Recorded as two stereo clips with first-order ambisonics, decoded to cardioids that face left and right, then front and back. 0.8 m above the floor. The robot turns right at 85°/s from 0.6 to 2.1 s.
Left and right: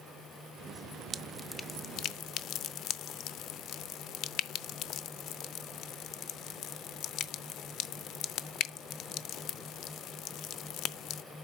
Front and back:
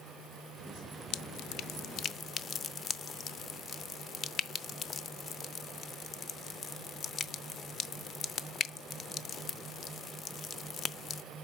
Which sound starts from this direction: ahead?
Dripping, at 1.1 s.